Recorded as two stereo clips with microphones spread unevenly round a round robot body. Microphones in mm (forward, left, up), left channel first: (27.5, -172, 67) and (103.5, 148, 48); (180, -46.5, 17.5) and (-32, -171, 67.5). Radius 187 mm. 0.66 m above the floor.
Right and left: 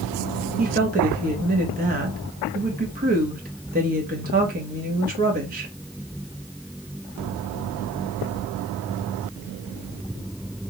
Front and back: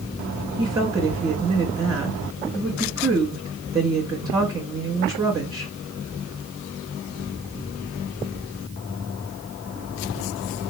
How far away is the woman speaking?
About 1.0 m.